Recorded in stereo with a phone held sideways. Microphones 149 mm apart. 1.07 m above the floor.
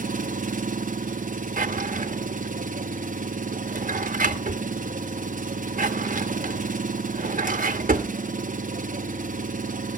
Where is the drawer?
65° right (ahead or behind), 0.9 m.